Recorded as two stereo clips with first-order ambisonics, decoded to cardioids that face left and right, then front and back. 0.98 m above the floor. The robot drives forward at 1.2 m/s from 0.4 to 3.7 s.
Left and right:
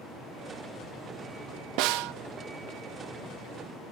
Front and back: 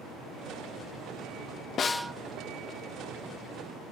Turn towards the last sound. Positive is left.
turn(degrees=-170)